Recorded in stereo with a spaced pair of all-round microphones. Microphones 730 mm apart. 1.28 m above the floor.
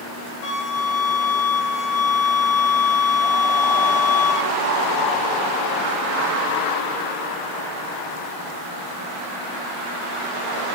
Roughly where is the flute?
Left.